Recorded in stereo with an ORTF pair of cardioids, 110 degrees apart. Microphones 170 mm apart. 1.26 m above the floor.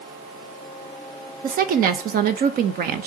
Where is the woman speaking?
60° right, 1.5 m.